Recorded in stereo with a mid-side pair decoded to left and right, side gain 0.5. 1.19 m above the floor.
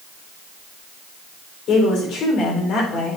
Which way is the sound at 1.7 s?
65° left.